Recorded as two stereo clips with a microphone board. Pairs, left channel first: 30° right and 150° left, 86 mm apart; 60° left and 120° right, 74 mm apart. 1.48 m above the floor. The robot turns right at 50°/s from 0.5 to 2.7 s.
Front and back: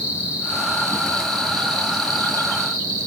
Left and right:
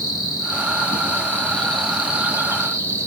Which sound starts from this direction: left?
An insect, at 0.0 s.